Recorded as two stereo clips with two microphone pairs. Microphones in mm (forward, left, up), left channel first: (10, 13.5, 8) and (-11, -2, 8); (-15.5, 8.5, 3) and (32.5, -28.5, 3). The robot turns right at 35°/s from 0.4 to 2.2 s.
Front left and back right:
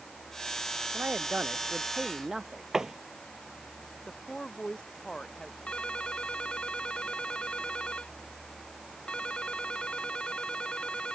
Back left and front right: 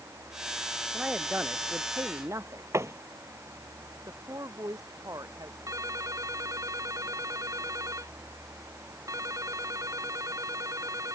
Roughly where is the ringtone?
Ahead.